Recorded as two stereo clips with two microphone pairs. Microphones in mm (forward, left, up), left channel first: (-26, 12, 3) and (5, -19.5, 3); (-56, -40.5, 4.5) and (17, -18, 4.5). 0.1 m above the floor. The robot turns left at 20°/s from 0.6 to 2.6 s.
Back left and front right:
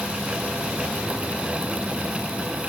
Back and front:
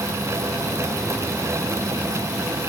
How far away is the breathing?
I don't hear breathing.